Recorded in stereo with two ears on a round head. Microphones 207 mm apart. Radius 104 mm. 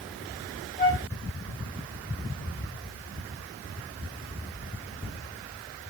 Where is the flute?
35° left (ahead or behind), 1.6 m.